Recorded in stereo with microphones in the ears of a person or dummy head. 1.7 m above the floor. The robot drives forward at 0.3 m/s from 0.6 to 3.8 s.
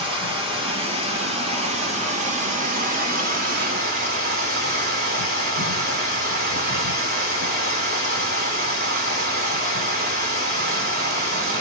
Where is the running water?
30° right (ahead or behind), 1.7 m; by 11.6 s 55° right (ahead or behind), 1.0 m.